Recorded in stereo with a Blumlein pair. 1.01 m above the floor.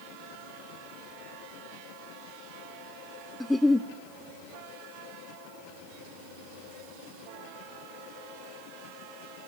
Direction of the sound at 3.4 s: 5° left.